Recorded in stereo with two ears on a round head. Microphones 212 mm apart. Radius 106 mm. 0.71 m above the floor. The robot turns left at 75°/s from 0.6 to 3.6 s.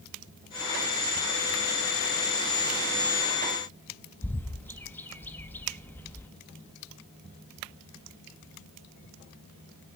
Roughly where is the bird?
Centre.